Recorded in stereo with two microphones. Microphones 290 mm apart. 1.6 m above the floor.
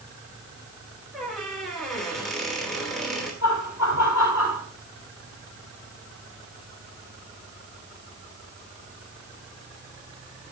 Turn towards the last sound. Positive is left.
turn(degrees=75)  # may be behind; listen again after turning